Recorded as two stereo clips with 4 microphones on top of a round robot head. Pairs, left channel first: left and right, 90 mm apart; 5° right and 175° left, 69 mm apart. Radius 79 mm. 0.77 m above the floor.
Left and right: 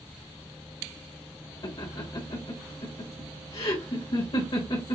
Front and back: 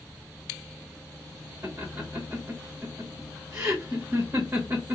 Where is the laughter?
115° left, 1.2 m.